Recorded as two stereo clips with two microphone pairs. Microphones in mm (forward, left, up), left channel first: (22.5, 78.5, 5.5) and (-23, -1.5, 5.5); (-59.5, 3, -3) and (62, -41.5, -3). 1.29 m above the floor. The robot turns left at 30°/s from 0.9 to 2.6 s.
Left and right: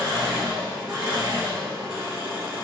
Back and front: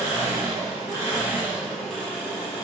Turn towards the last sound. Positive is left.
turn(degrees=-135)